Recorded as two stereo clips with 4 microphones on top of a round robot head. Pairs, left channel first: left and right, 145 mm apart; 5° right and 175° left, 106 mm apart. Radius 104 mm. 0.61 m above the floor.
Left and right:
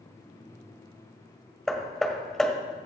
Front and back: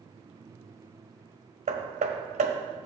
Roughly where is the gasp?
No gasp in this recording.